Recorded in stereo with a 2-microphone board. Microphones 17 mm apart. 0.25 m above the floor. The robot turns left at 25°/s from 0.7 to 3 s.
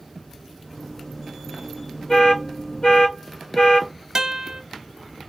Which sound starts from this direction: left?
An alarm, at 2.1 s.